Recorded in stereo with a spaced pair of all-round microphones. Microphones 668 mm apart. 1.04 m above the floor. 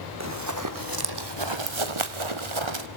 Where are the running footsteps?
20° right (ahead or behind), 2 m; by 2.9 s 40° right (ahead or behind), 1.6 m.